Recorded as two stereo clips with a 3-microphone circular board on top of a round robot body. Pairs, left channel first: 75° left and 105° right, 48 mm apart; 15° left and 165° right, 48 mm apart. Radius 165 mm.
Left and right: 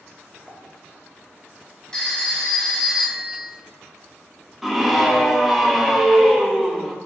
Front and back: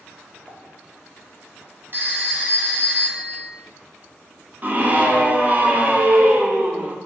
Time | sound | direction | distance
0.5 | a pop | 145° right | 1.2 m
1.9 | a phone ringing | 150° left | 1.3 m
4.6 | a scream | 170° left | 1.0 m